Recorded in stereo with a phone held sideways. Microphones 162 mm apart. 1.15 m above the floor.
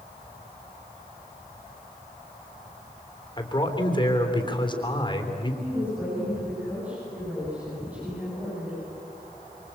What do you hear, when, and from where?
3.4 s a man speaking: 30° left (ahead or behind), 3.5 m
5.6 s a woman speaking: 10° right (ahead or behind), 9 m